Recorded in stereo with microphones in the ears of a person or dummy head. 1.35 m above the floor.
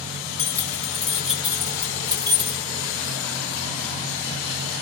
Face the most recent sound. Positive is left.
turn(degrees=-30)  # may be behind; listen again after turning